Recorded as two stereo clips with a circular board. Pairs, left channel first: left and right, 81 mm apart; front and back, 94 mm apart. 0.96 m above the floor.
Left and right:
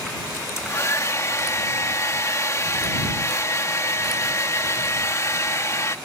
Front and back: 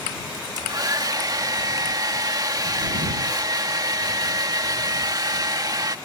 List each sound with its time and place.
0.3 s a hair dryer: 135° left